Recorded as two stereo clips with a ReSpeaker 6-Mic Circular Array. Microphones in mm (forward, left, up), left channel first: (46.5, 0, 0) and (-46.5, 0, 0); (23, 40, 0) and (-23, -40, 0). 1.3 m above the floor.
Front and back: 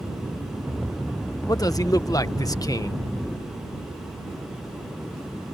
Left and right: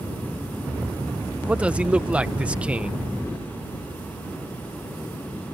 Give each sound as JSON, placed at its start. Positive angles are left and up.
{"t": 1.5, "sound": "a man speaking", "azimuth_deg": -45}